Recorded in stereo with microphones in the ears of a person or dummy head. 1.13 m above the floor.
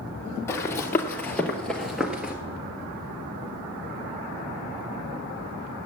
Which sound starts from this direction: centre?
Running footsteps, at 0.5 s.